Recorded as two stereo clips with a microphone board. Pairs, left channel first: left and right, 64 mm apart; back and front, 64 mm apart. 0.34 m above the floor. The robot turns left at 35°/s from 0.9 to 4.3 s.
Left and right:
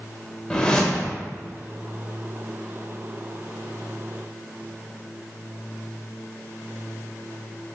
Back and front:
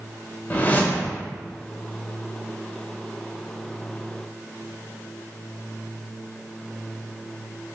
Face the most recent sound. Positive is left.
turn(degrees=35)